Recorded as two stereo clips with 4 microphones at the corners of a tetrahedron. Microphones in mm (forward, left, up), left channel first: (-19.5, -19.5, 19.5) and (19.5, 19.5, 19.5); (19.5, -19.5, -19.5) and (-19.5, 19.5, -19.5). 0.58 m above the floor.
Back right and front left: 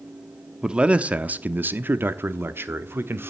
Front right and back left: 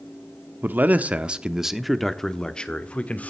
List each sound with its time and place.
0.6 s a man speaking: 110° left, 1.0 m; by 3.3 s 15° left, 1.3 m